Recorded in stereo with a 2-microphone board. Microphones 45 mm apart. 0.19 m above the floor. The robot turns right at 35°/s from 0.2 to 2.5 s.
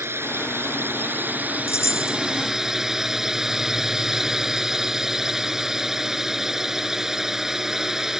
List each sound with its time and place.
0.0 s a drone: 90° right; by 8.2 s 10° right
1.7 s a chime: 80° left